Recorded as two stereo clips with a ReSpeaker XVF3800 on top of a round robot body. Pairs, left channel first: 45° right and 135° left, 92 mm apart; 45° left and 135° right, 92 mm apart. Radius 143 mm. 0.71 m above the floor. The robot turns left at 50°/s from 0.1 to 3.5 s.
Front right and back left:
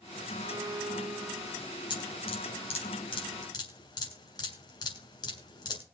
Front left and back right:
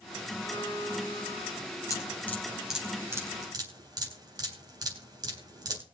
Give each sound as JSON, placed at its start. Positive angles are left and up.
{"t": 0.4, "sound": "a violin", "azimuth_deg": 85, "distance_m": 3.5}
{"t": 1.9, "sound": "dripping", "azimuth_deg": -10, "distance_m": 4.0}